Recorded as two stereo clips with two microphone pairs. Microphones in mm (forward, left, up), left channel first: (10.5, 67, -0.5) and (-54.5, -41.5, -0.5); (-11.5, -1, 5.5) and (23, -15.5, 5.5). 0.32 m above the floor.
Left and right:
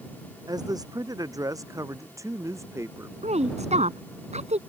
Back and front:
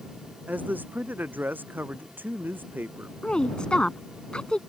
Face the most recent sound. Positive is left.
turn(degrees=-140)